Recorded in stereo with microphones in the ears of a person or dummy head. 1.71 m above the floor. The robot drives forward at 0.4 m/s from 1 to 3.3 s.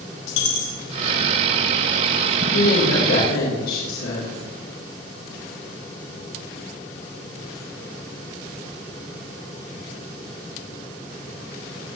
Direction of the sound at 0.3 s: 80° left.